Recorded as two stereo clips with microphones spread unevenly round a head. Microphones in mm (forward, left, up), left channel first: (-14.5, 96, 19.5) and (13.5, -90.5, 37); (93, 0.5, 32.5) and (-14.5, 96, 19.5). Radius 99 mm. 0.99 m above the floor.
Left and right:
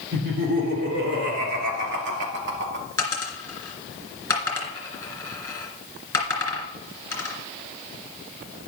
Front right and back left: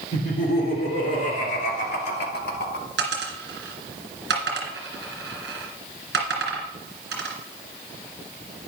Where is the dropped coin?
Straight behind, 2.5 m.